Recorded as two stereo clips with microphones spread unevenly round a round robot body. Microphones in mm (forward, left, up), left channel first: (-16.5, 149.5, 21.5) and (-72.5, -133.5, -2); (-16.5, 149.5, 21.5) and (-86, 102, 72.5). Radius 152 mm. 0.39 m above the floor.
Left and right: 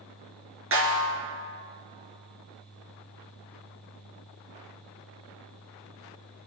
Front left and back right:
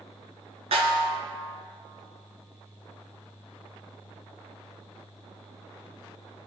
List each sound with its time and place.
0.7 s a snare drum: 145° right, 3 m